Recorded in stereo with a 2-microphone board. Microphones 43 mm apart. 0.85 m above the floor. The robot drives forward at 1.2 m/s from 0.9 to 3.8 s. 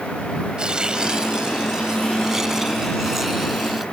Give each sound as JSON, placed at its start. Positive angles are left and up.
{"t": 0.6, "sound": "tearing paper", "side_deg": -20}